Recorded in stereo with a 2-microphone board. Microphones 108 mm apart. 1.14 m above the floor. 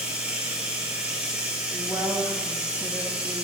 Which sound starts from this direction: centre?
Running water, at 0.0 s.